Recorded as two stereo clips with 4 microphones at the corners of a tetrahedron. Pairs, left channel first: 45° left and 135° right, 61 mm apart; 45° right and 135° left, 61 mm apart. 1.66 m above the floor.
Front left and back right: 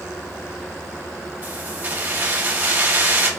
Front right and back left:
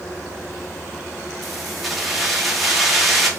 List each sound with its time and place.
1.4 s keys jangling: 135° right, 0.9 m